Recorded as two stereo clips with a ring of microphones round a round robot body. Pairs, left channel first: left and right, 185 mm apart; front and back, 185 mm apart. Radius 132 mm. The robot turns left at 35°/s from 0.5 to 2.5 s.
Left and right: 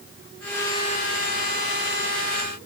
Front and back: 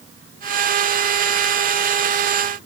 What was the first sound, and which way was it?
Only background noise.